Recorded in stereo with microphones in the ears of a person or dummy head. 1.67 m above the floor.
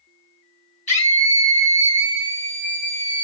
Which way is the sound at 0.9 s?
30° left (ahead or behind).